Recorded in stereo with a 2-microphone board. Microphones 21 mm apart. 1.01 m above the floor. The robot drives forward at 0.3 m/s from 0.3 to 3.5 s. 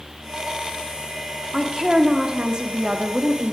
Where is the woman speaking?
45° right (ahead or behind), 2.0 m; by 3.5 s 60° right (ahead or behind), 1.6 m.